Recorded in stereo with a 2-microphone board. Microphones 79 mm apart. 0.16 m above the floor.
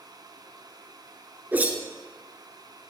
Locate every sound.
1.5 s a whoosh: 25° right (ahead or behind), 2.5 m